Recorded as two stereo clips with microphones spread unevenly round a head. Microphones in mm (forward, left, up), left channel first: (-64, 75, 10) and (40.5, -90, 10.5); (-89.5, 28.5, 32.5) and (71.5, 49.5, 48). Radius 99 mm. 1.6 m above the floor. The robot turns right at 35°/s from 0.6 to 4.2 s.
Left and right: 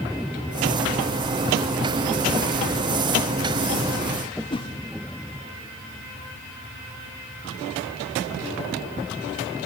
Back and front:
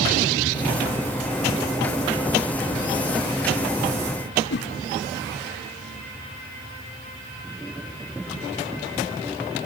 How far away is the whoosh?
About 0.9 m.